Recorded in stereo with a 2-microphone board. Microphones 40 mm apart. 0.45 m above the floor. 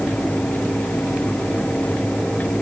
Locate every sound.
Only background noise.